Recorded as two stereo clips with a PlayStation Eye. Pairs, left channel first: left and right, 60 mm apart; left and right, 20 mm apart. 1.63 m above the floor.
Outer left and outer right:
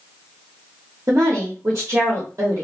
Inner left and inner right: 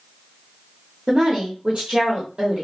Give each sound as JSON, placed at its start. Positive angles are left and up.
{"t": 1.1, "sound": "a woman speaking", "side_deg": -65, "distance_m": 0.9}